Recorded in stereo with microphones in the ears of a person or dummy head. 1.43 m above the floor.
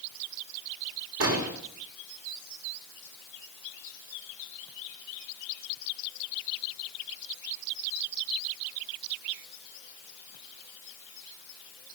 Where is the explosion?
65° right (ahead or behind), 4.5 m.